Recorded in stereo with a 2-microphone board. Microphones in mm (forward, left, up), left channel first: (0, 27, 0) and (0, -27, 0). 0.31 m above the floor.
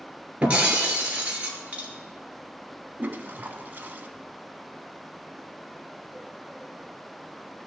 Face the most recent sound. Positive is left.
turn(degrees=-35)  # may be behind; listen again after turning